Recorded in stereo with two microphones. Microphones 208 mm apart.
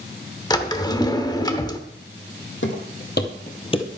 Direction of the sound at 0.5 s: 20° left (ahead or behind).